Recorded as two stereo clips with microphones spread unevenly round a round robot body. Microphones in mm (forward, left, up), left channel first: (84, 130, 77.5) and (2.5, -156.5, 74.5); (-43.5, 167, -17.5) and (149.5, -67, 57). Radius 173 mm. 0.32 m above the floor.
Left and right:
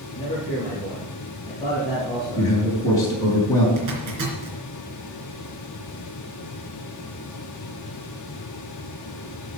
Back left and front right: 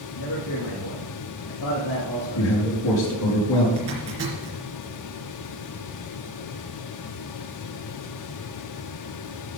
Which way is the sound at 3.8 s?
95° right.